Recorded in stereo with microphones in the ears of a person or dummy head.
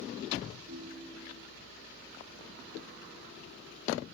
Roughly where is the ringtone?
Right.